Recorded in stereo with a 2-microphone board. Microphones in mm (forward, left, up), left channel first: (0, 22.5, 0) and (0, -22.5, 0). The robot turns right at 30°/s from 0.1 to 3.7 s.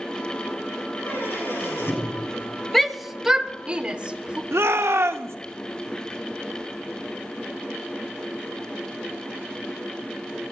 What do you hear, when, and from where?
1.0 s a squeak: 60° left, 5 m; by 2.2 s 95° left, 5 m
2.7 s a shout: 5° left (ahead or behind), 0.6 m; by 4.4 s 20° right (ahead or behind), 0.6 m
4.5 s a shout: 75° right (ahead or behind), 0.6 m